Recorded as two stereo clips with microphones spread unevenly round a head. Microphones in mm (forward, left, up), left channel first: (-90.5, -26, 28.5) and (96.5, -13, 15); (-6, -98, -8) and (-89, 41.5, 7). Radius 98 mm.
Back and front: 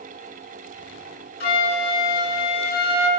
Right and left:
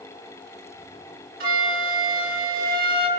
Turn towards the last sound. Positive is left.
turn(degrees=140)